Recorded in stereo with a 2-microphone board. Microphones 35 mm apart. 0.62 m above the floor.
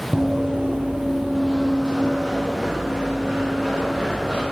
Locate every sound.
0.1 s running footsteps: 25° right (ahead or behind), 0.8 m; by 4.4 s 15° right (ahead or behind), 3 m